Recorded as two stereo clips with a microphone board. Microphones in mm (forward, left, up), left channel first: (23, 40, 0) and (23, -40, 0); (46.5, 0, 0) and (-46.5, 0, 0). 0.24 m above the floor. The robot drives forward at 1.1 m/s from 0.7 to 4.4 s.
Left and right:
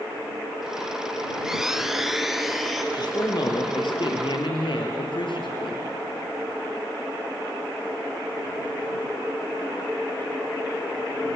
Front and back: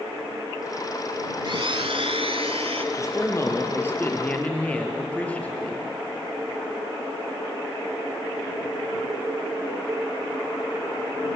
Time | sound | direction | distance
1.4 | a blender | 170° right | 0.6 m
2.9 | a man speaking | 55° left | 4.5 m